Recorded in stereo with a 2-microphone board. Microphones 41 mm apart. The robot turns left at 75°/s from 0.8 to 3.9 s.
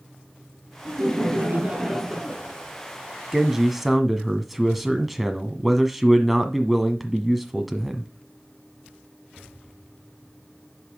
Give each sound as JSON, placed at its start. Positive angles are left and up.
{"t": 0.8, "sound": "laughter", "azimuth_deg": -80, "distance_m": 4.5}
{"t": 3.3, "sound": "a man speaking", "side_deg": -15, "distance_m": 1.4}